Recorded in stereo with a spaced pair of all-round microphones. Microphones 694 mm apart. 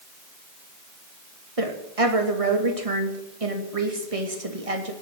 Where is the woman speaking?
50° right (ahead or behind), 2.5 m.